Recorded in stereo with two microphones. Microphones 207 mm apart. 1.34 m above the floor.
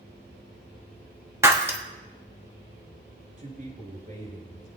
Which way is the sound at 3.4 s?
40° right (ahead or behind).